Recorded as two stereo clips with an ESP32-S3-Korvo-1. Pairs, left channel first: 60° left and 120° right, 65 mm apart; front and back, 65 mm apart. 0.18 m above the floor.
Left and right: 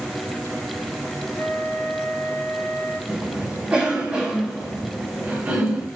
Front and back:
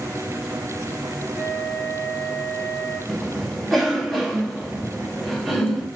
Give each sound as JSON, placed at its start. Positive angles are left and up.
{"t": 1.4, "sound": "a flute", "azimuth_deg": 120, "distance_m": 1.3}
{"t": 3.1, "sound": "a cough", "azimuth_deg": -85, "distance_m": 1.0}